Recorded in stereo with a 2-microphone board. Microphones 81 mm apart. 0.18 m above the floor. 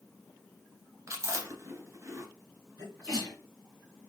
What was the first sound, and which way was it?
Chewing, 35° right (ahead or behind).